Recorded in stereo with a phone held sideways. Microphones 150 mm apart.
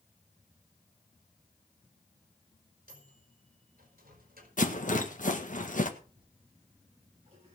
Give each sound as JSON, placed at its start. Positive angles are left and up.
{"t": 2.9, "sound": "a microwave", "side_deg": -75, "distance_m": 4.5}
{"t": 4.6, "sound": "a rattle", "side_deg": 60, "distance_m": 1.6}
{"t": 6.0, "sound": "a toilet flushing", "side_deg": -40, "distance_m": 8.0}